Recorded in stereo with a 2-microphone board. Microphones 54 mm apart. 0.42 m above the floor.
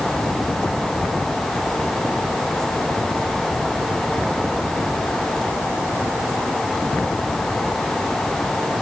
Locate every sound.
Only background noise.